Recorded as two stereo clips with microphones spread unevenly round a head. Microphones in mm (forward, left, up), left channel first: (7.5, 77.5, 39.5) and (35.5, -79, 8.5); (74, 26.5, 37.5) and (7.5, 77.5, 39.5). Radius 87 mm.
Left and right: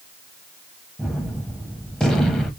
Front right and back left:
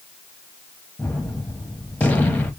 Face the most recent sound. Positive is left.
turn(degrees=30)